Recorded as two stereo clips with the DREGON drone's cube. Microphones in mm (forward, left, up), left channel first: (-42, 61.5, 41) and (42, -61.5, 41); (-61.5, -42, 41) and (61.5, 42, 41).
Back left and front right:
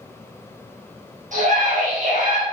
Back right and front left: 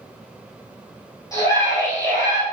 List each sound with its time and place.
1.3 s a scream: 80° right, 3 m